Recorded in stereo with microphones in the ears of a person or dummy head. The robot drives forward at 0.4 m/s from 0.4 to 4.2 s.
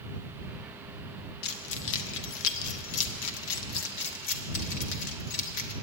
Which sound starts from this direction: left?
Keys jangling, at 1.4 s.